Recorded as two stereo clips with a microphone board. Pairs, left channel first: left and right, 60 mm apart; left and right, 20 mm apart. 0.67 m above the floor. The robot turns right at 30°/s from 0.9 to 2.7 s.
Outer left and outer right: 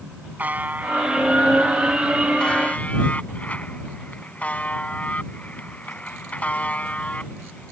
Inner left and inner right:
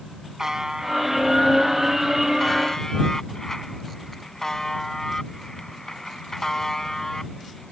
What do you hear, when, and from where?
0.4 s a buzzer: 30° right; by 7.7 s 25° left